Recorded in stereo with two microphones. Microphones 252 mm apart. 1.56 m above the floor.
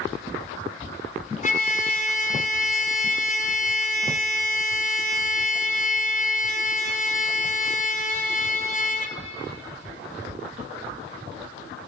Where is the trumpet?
30° left (ahead or behind), 0.5 m.